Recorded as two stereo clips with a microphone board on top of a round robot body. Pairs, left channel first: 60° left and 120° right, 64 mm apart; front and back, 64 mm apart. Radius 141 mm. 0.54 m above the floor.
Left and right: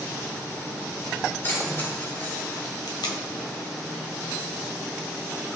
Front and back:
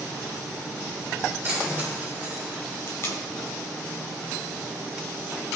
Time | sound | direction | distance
1.4 | keys jangling | 115° left | 6 m
2.9 | tape being pulled | 50° left | 1.7 m